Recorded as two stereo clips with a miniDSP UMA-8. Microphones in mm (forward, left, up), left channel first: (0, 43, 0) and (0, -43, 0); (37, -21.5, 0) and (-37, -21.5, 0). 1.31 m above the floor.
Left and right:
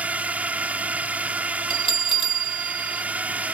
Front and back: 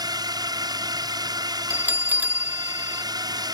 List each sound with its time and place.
0.0 s a drone: 160° right
1.7 s a bell: 115° left